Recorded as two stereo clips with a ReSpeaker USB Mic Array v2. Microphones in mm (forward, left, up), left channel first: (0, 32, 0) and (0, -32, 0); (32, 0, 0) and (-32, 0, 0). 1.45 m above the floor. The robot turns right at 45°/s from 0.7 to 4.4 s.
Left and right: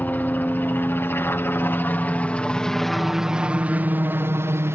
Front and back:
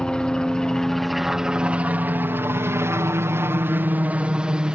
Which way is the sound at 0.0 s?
65° left.